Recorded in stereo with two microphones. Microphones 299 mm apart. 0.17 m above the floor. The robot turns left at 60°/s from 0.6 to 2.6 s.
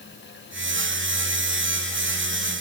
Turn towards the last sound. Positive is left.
No sound to turn to.